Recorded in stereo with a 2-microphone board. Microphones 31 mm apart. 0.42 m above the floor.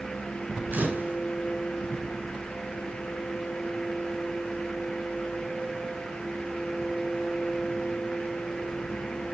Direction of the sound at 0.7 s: 80° right.